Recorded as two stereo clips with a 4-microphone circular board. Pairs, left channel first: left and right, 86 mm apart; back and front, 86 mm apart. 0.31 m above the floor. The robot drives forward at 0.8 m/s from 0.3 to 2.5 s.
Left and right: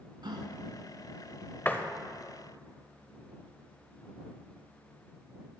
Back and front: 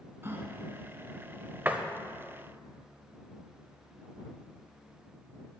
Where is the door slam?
45° left, 0.6 m; by 1.9 s 70° left, 0.6 m.